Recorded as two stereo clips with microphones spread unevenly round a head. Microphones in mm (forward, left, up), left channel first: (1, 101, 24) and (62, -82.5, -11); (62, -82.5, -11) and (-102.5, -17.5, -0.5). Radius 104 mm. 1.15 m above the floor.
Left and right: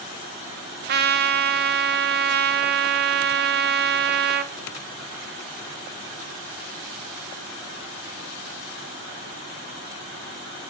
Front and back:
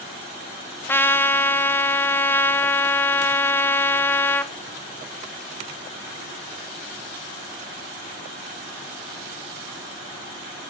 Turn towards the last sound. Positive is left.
turn(degrees=-95)